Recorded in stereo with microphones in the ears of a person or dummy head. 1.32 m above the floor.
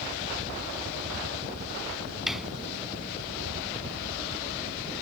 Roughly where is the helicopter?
Right.